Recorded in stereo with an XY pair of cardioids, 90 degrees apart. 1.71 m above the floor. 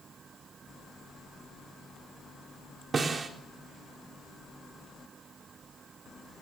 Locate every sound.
2.9 s a snare drum: 45° right, 4 m